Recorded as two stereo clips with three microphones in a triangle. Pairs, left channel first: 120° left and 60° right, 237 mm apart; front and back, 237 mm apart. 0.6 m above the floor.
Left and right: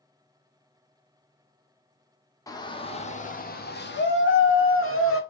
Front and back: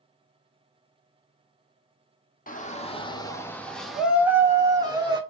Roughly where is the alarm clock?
I don't hear an alarm clock.